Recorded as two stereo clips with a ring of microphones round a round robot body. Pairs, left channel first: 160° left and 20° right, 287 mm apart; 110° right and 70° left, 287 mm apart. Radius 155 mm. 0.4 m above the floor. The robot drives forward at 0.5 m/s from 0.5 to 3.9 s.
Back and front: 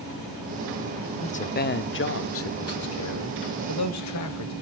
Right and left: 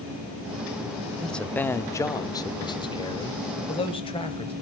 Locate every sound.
1.2 s a man speaking: 160° left, 0.8 m; by 4.5 s 175° left, 1.8 m